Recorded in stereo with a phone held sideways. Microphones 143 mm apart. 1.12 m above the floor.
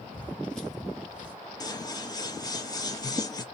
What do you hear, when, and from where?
0.1 s footsteps: 10° left (ahead or behind), 1.2 m; by 1.4 s 10° right (ahead or behind), 1.1 m
1.6 s scissors: 25° left (ahead or behind), 0.6 m